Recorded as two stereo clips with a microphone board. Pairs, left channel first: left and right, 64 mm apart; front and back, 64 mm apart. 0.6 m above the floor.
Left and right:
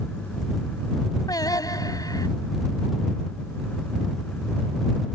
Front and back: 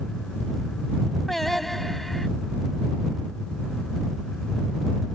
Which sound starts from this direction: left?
Singing, at 1.3 s.